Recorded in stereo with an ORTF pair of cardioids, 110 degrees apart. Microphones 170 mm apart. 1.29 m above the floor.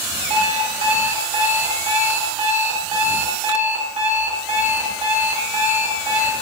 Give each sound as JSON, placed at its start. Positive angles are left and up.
{"t": 0.3, "sound": "an alarm clock", "azimuth_deg": -45, "distance_m": 1.8}